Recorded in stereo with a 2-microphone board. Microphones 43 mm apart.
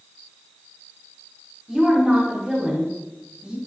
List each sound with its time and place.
1.7 s a woman speaking: 15° right (ahead or behind), 3 m